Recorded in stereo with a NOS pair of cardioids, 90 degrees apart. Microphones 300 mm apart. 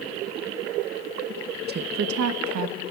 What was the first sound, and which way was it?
A woman speaking, 35° right.